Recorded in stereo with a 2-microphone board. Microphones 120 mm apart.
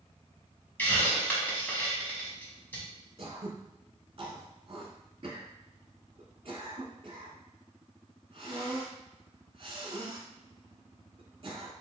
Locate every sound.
0.8 s a hiss: 15° left (ahead or behind), 1.5 m
3.2 s throat clearing: 50° right (ahead or behind), 1.1 m